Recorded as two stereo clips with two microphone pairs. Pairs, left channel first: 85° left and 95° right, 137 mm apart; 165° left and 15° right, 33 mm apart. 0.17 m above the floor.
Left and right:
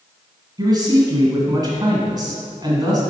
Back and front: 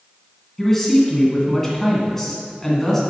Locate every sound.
0.6 s a man speaking: 130° right, 1.4 m